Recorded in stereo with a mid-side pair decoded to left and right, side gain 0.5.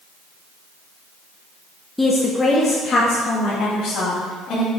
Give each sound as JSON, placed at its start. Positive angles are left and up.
{"t": 2.0, "sound": "a woman speaking", "azimuth_deg": 10, "distance_m": 1.1}